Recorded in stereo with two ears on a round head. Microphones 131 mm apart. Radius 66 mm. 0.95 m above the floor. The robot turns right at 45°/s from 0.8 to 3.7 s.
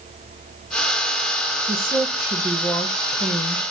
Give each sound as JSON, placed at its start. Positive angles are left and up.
{"t": 1.7, "sound": "a woman speaking", "azimuth_deg": -25, "distance_m": 0.9}